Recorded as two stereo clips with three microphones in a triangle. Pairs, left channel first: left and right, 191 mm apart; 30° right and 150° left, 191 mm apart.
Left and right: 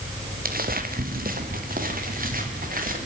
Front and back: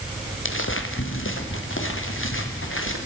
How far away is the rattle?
I don't hear a rattle.